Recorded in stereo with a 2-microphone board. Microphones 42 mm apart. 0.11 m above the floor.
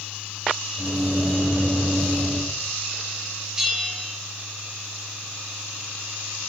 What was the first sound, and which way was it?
A microwave, 40° right (ahead or behind).